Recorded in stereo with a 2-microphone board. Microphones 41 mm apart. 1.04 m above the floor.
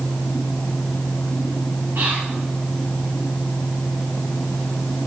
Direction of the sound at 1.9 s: 75° right (ahead or behind).